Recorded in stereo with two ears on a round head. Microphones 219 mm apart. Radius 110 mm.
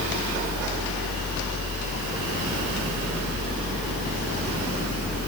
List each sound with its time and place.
Only background noise.